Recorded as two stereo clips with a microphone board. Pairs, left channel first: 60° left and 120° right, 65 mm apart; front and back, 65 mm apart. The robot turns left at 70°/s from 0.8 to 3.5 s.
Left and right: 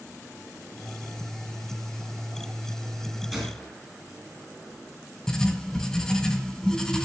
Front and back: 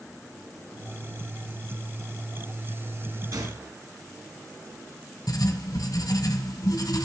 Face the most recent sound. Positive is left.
turn(degrees=-20)